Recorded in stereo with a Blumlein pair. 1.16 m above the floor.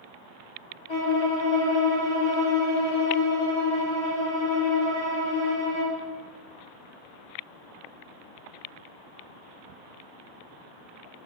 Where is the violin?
45° left, 2.5 m.